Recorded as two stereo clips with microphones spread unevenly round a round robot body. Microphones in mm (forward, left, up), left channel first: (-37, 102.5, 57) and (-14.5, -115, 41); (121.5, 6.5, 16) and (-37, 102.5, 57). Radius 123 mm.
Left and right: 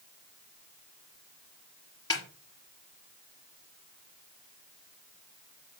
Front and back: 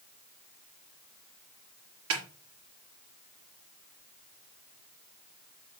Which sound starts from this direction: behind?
A snare drum, at 2.1 s.